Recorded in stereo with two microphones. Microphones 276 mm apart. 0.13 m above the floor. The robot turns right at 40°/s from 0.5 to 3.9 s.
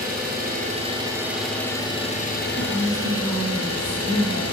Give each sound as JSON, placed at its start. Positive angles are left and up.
{"t": 0.0, "sound": "an engine running", "azimuth_deg": -40, "distance_m": 1.6}
{"t": 2.6, "sound": "a woman speaking", "side_deg": -10, "distance_m": 1.2}